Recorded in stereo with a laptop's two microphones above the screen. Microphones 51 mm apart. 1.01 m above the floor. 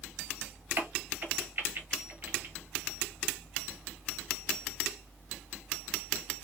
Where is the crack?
40° right (ahead or behind), 0.9 m.